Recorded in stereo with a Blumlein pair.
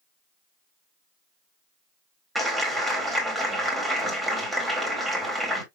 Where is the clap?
5° right, 1.9 m.